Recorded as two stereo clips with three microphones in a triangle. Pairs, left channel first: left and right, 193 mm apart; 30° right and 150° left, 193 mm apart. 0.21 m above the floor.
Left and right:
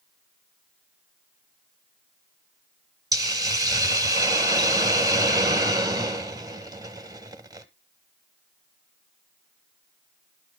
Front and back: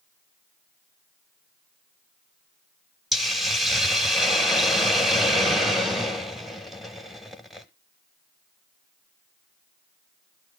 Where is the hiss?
120° right, 0.9 m.